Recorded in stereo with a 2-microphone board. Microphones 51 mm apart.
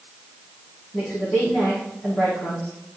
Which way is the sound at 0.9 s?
30° left (ahead or behind).